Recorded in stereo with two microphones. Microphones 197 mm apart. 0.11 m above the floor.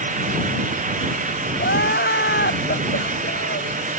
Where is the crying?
60° left (ahead or behind).